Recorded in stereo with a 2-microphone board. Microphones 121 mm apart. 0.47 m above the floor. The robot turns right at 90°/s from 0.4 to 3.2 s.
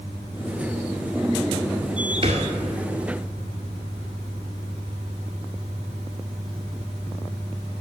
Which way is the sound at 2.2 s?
60° right (ahead or behind).